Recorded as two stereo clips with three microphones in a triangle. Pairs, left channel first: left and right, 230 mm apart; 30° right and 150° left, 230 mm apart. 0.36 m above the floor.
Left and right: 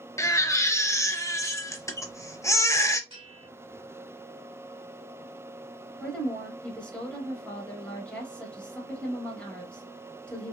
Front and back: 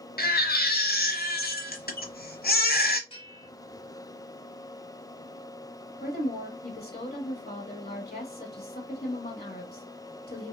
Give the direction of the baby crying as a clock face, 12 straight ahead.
12 o'clock.